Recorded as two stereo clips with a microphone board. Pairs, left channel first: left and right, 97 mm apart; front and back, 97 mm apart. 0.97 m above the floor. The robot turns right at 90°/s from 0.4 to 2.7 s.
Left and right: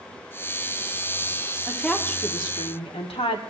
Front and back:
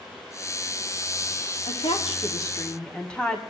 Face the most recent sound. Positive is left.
turn(degrees=80)